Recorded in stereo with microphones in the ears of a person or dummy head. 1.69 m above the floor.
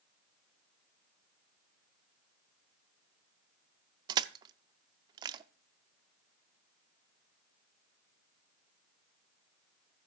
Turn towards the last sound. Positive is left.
turn(degrees=-25)  # may be behind; listen again after turning